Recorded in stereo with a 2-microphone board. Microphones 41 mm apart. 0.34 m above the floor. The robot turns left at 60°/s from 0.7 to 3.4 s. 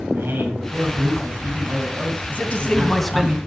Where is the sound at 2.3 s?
50° left, 2 m; by 3.4 s 15° right, 2 m.